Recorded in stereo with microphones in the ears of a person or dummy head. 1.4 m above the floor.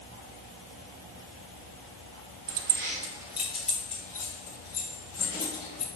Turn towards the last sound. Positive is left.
turn(degrees=20)  # may be behind; listen again after turning